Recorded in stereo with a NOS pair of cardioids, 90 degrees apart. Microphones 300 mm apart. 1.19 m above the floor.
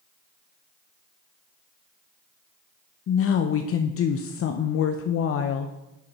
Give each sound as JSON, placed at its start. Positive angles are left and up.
{"t": 3.1, "sound": "a woman speaking", "azimuth_deg": 50, "distance_m": 0.6}